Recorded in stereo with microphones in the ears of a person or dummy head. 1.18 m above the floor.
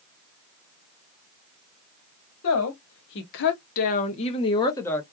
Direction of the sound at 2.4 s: 80° left.